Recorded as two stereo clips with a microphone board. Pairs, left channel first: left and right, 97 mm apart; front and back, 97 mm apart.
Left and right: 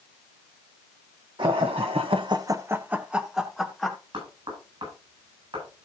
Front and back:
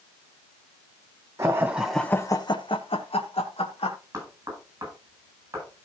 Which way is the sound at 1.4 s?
120° right.